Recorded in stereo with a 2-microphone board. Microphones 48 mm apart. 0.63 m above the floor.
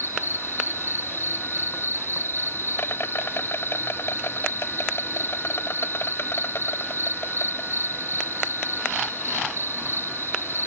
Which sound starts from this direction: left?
An insect, at 0.0 s.